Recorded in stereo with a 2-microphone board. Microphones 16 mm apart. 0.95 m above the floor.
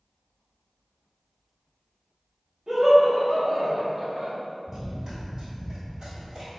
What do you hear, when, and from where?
2.7 s laughter: 45° right (ahead or behind), 0.8 m; by 4.3 s 35° right (ahead or behind), 0.9 m
4.7 s running footsteps: 20° right (ahead or behind), 1.0 m; by 6.5 s 45° right (ahead or behind), 1.6 m